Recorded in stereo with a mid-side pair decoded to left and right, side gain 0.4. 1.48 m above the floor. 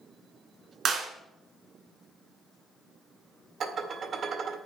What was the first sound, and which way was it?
A clap, 65° right.